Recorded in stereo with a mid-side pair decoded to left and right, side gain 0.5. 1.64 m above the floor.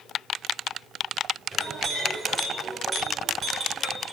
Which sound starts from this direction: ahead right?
A clink, at 1.5 s.